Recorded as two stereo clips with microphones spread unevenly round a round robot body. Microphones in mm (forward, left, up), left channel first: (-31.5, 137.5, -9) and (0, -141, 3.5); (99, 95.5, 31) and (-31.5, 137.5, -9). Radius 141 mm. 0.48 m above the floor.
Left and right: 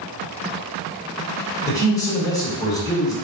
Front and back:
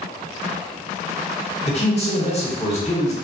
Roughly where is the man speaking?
Ahead left.